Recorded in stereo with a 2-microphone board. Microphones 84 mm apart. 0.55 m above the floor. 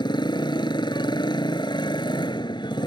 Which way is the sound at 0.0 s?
65° left (ahead or behind).